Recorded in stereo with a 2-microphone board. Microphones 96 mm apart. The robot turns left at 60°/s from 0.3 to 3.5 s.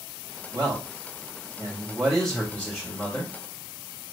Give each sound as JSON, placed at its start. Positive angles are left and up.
{"t": 0.5, "sound": "a man speaking", "azimuth_deg": -75, "distance_m": 1.0}